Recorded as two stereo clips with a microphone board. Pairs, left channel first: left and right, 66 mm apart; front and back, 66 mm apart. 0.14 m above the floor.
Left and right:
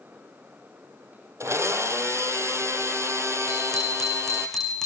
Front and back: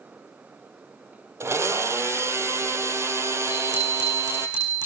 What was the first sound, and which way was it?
A blender, 135° right.